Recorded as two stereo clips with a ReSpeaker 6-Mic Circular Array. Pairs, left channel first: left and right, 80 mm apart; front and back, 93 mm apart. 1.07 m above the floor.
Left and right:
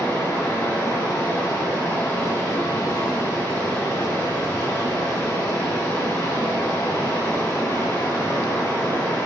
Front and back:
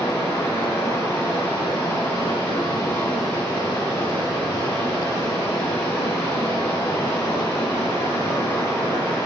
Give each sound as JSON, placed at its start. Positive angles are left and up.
{"t": 0.0, "sound": "running water", "azimuth_deg": 35, "distance_m": 1.4}